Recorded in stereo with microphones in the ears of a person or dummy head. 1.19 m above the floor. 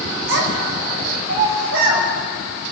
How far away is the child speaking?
About 3.5 m.